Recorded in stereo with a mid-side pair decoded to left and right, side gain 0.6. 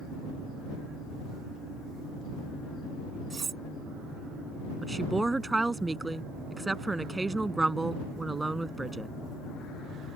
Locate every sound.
3.3 s cutlery clinking: 25° right
4.8 s a woman speaking: 10° right